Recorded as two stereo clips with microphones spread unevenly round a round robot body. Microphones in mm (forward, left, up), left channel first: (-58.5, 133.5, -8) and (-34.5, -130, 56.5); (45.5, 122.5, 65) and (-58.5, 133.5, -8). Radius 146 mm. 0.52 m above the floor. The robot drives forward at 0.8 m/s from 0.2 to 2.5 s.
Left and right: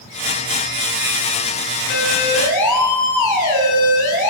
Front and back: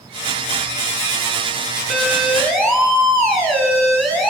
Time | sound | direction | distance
1.9 | a siren | 85° left | 7.5 m